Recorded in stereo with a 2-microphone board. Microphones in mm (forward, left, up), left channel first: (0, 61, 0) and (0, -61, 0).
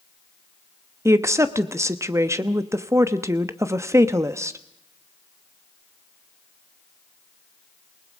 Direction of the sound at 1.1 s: 25° right (ahead or behind).